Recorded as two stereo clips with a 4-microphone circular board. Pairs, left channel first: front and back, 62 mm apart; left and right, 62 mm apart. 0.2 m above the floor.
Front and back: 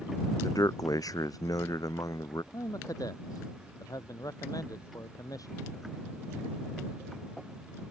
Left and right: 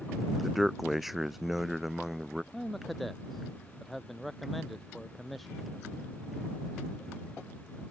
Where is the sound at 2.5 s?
Straight ahead.